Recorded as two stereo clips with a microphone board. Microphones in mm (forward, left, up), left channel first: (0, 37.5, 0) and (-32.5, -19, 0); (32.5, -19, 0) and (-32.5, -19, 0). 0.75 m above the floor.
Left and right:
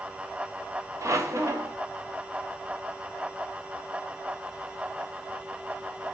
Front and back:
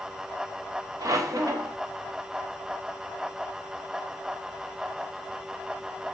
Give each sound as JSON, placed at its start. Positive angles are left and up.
{"t": 1.0, "sound": "a squeak", "azimuth_deg": -155, "distance_m": 0.7}